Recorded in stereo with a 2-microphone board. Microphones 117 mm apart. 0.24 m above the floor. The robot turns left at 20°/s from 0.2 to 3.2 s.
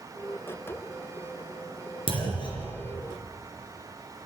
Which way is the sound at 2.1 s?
55° left (ahead or behind).